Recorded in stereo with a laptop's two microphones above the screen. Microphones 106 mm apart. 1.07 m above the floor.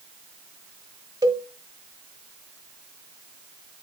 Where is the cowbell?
40° right (ahead or behind), 0.9 m.